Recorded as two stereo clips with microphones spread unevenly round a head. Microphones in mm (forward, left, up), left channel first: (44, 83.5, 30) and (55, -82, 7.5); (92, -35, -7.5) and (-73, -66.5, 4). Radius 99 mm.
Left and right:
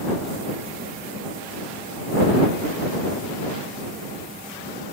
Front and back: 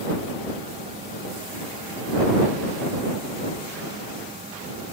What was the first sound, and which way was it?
Only background noise.